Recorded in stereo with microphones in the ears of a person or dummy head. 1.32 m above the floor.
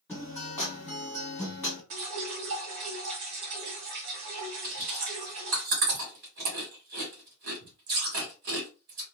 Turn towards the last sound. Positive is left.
turn(degrees=-45)  # may be behind; listen again after turning